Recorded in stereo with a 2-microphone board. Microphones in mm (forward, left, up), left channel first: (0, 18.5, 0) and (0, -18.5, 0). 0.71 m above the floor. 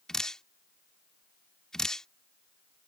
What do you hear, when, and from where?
0.1 s dripping: 15° left (ahead or behind)